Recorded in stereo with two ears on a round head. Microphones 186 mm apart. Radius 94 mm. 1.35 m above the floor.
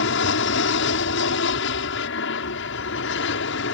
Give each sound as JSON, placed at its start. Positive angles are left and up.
{"t": 0.0, "sound": "an aircraft", "side_deg": 60}